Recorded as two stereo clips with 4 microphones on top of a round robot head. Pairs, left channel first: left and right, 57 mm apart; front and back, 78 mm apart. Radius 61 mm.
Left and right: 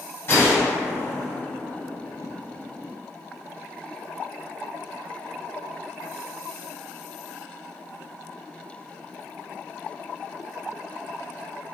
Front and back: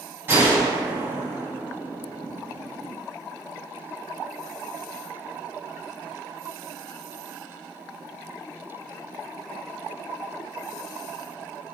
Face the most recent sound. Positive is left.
turn(degrees=120)